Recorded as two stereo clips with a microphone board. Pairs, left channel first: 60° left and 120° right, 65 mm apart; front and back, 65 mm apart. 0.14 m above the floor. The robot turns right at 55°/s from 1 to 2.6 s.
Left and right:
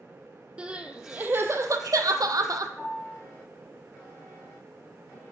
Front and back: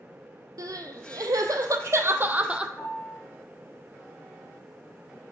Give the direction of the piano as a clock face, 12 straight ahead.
1 o'clock.